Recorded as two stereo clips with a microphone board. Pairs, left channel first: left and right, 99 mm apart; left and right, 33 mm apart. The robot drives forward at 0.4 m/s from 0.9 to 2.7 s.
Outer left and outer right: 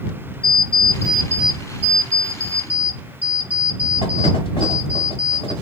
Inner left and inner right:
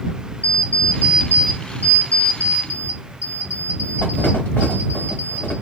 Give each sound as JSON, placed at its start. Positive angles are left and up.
{"t": 0.4, "sound": "an alarm clock", "side_deg": 75, "distance_m": 1.0}